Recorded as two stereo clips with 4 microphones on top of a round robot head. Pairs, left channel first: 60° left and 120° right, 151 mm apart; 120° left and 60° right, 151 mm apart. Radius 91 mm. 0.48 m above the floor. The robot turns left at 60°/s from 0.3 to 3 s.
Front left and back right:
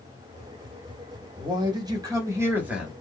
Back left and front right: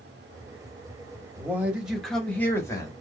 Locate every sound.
1.4 s a man speaking: 110° right, 1.2 m; by 2.9 s 155° left, 1.2 m